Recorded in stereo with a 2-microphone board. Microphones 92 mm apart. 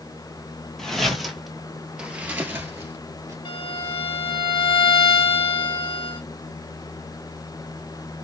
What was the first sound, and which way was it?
Footsteps, 5° left (ahead or behind).